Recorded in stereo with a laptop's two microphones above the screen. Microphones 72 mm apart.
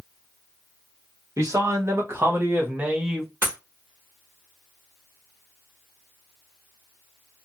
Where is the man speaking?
50° right (ahead or behind), 1.3 m; by 3.3 s centre (ahead or behind), 0.7 m.